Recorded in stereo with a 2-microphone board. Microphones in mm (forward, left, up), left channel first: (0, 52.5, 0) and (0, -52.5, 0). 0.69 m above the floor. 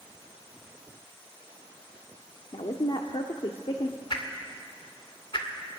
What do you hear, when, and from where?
2.5 s a woman speaking: 60° left (ahead or behind), 1.2 m
4.1 s a whoosh: 50° left (ahead or behind), 2 m